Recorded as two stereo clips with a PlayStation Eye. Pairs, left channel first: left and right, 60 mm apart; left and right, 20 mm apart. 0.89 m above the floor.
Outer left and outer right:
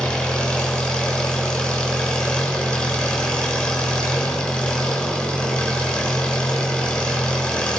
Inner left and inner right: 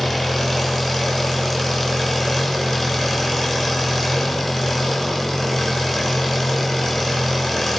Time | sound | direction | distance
0.0 | an engine running | 15° left (ahead or behind) | 7 m